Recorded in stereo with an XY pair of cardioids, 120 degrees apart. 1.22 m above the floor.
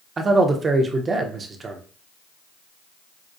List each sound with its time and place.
0.2 s a man speaking: 30° right, 0.7 m